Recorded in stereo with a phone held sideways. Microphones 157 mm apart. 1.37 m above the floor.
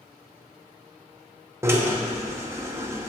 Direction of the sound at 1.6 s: 20° right (ahead or behind).